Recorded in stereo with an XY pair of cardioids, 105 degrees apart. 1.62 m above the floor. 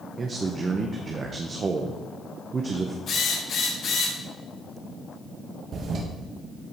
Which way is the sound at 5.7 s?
60° right.